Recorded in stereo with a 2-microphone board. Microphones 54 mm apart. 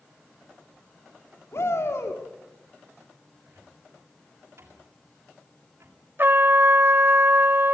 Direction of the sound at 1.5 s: 55° left (ahead or behind).